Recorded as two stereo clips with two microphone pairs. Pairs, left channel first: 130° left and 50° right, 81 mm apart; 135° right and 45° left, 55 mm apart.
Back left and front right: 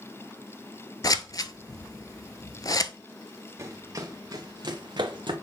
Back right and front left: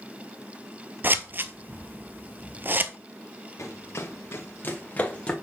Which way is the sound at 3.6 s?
105° right.